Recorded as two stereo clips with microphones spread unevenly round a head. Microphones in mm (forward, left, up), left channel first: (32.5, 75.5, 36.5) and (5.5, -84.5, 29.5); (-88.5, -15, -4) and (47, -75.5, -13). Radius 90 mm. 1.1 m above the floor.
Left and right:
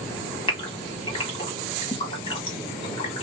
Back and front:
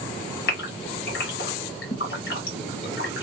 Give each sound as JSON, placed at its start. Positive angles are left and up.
{"t": 0.5, "sound": "a gasp", "azimuth_deg": 140, "distance_m": 1.4}